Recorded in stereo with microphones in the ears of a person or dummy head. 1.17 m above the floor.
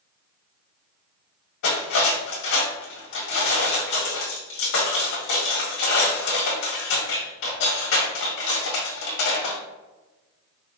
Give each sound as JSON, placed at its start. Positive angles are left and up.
{"t": 1.6, "sound": "cutlery clinking", "side_deg": 60, "distance_m": 1.6}